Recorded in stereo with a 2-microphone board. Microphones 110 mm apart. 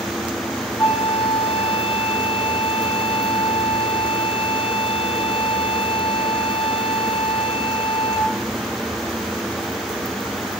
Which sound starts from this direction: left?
A flute, at 0.8 s.